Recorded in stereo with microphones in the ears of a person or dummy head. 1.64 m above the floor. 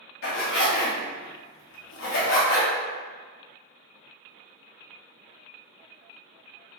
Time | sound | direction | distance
0.2 | a zipper | 65° left (ahead or behind) | 0.9 m